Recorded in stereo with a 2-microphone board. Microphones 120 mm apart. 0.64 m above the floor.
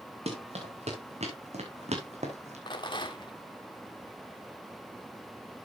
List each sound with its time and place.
0.3 s running footsteps: 60° right (ahead or behind), 4.5 m; by 2.6 s 70° right (ahead or behind), 2.5 m
2.7 s a rattle: 40° left (ahead or behind), 1.5 m